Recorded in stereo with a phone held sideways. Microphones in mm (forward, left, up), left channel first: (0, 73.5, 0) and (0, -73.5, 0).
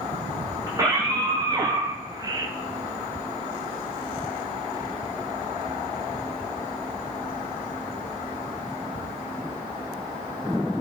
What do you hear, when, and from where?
0.7 s a scream: 25° right (ahead or behind), 1.4 m